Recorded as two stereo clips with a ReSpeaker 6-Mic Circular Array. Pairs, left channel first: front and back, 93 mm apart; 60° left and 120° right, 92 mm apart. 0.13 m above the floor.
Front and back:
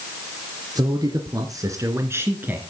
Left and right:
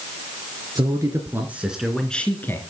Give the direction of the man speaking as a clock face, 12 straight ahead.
5 o'clock.